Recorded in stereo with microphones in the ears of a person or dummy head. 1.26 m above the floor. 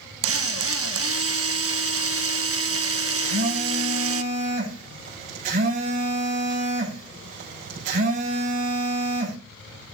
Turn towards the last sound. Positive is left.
turn(degrees=-45)  # may be behind; listen again after turning